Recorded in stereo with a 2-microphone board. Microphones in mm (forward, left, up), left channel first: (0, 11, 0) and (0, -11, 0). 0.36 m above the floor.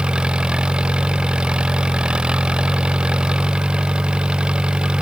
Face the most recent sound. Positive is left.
turn(degrees=-45)  # may be behind; listen again after turning